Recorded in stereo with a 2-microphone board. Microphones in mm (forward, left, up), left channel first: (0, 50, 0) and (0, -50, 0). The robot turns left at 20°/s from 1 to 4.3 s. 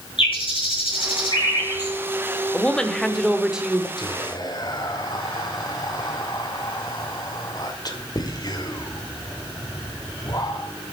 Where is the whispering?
45° left (ahead or behind), 2.0 m; by 10.7 s 40° left (ahead or behind), 2.0 m.